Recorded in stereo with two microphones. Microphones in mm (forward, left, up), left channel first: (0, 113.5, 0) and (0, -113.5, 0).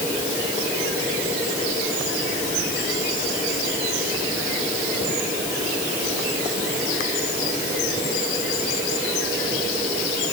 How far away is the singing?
I don't hear singing.